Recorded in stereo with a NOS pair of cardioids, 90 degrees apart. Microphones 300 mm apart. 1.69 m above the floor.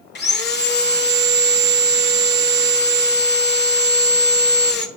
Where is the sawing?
35° left, 1.1 m.